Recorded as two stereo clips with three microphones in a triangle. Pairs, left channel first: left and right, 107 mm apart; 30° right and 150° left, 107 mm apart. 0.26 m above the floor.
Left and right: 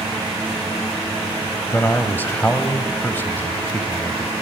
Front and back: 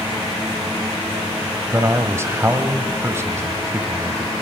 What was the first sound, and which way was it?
A man speaking, 135° left.